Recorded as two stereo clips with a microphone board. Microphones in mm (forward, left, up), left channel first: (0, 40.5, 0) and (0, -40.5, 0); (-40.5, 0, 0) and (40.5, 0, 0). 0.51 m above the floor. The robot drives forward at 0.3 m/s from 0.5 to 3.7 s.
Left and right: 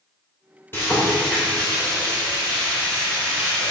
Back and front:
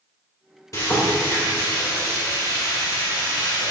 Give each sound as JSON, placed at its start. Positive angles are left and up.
{"t": 0.7, "sound": "frying", "azimuth_deg": 145, "distance_m": 2.0}